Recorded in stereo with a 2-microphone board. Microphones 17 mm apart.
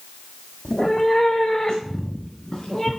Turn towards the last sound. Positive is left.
turn(degrees=35)  # may be behind; listen again after turning